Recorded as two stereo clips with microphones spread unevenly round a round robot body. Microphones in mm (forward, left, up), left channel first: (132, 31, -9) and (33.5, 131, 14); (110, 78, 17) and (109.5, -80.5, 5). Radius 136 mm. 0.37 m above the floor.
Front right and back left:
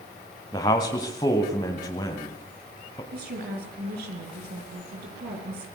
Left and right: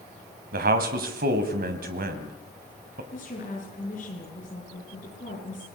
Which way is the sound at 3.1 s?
150° left.